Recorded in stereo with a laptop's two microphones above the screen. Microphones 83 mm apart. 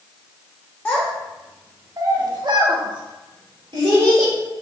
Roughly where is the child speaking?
Left.